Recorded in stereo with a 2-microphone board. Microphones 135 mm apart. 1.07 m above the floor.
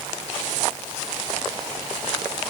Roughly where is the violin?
No violin in this recording.